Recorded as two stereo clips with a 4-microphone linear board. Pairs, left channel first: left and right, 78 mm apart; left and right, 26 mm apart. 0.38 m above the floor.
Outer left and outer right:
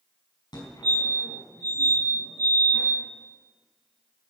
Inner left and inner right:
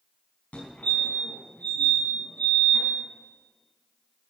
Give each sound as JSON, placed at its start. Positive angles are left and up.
{"t": 0.5, "sound": "a fire alarm", "side_deg": 65, "distance_m": 5.0}